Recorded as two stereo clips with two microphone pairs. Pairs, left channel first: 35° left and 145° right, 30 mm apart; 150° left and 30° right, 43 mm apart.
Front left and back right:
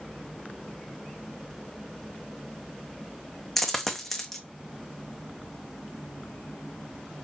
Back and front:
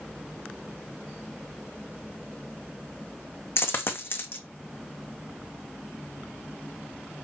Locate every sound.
3.6 s a dropped coin: 125° left, 0.8 m